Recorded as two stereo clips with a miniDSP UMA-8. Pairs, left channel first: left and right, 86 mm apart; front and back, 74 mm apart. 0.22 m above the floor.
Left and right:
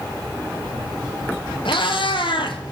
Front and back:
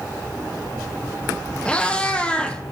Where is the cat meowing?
75° left, 0.9 m.